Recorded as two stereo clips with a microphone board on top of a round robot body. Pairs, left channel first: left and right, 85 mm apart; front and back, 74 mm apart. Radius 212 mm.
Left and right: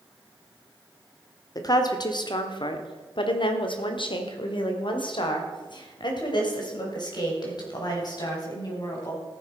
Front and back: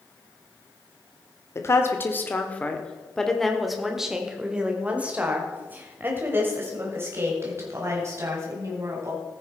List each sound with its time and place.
1.6 s a woman speaking: 50° left, 1.7 m; by 9.2 s 130° left, 4.5 m